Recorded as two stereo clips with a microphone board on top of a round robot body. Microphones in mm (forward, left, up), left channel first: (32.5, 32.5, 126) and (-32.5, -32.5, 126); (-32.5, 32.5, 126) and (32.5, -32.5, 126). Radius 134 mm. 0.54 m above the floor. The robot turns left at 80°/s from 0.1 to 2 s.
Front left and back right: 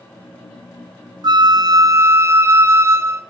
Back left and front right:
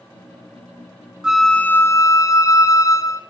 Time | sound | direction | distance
1.2 | a flute | 125° right | 0.7 m